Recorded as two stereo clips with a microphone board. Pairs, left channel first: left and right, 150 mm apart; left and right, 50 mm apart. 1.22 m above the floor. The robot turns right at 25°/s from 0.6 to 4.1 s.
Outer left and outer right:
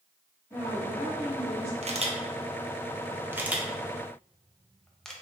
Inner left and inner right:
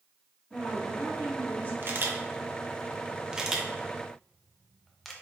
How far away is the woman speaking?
About 1.6 m.